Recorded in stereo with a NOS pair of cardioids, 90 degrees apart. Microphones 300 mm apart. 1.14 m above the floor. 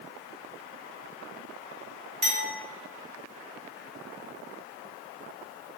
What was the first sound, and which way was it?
A clink, 35° right.